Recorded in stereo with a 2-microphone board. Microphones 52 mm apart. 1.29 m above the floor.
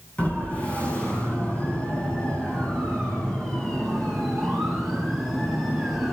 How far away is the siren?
About 9.5 m.